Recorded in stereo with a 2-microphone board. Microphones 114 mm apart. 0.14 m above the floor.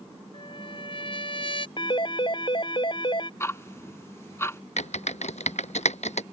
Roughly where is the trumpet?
Left.